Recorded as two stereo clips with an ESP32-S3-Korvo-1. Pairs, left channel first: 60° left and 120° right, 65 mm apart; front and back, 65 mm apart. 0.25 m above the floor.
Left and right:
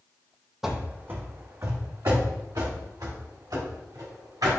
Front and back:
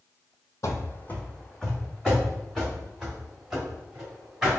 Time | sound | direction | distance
0.6 | running footsteps | 35° right | 0.5 m